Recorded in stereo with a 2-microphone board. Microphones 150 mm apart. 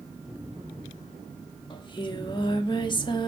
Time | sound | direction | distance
1.7 | singing | 35° left (ahead or behind) | 1.2 m